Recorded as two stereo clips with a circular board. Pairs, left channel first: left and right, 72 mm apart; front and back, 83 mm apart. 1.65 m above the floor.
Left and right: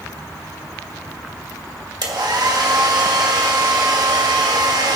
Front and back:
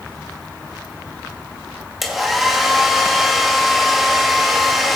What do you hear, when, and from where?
2.0 s a hair dryer: 90° right, 2.5 m